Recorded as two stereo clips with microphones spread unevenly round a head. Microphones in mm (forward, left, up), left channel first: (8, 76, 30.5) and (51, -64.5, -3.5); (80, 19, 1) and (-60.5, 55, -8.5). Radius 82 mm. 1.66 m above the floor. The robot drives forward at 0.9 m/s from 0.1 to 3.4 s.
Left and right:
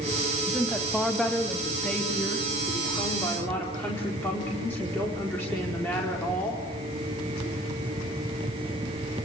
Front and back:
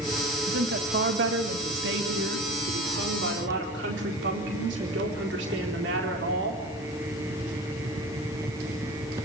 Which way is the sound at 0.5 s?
165° right.